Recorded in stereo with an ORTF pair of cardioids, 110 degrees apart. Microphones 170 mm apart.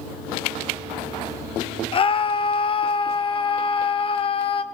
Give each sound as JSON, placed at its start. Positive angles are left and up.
{"t": 1.9, "sound": "a scream", "azimuth_deg": 30, "distance_m": 0.8}